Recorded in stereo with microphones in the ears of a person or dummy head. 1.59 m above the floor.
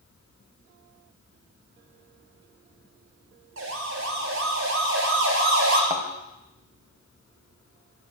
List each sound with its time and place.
3.6 s a siren: 80° right, 5 m; by 5.8 s 75° right (ahead or behind), 7 m
5.9 s a thud: 10° right (ahead or behind), 3.5 m